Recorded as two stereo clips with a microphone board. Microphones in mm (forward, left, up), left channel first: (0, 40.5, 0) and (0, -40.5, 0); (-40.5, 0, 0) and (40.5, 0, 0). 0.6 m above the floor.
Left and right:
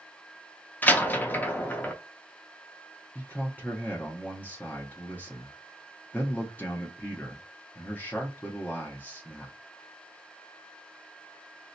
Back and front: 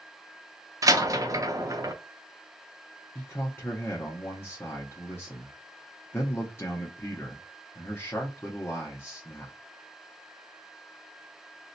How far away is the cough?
I don't hear a cough.